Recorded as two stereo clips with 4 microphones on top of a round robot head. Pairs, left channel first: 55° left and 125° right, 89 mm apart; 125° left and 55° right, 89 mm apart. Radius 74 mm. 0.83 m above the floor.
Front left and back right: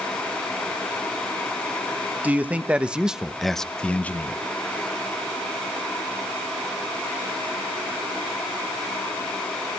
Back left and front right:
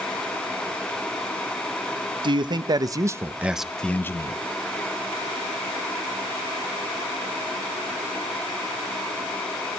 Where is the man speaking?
55° right, 1.2 m; by 4.4 s 110° left, 0.8 m.